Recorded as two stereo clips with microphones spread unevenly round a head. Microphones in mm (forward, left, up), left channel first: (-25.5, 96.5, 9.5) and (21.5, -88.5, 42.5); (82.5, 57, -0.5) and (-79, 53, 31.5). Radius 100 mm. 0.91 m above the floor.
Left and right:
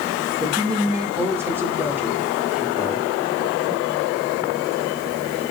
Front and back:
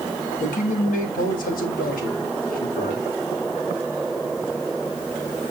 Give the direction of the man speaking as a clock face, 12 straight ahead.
12 o'clock.